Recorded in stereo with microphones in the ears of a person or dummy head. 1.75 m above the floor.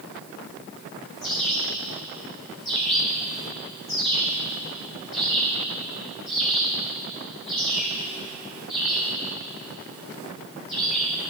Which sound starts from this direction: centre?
A bird, at 1.2 s.